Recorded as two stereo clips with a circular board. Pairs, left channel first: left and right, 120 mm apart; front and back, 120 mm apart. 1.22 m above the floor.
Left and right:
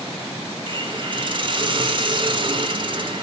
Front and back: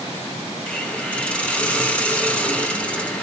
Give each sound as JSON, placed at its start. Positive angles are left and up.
{"t": 0.7, "sound": "a hiss", "azimuth_deg": -75, "distance_m": 0.7}